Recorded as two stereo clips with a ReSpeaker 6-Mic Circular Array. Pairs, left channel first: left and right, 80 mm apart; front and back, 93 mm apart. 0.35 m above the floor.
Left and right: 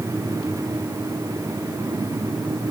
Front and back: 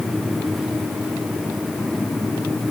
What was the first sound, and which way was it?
Only background noise.